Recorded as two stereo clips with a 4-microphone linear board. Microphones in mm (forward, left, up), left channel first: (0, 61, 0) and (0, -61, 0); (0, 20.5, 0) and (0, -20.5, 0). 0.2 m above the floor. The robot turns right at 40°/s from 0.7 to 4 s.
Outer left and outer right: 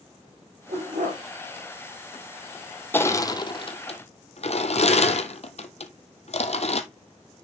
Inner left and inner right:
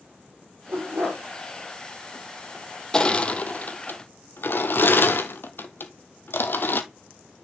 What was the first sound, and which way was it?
A dog barking, 65° right (ahead or behind).